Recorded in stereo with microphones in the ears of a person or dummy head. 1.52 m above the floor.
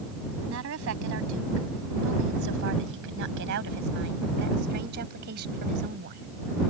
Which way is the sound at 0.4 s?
70° right (ahead or behind).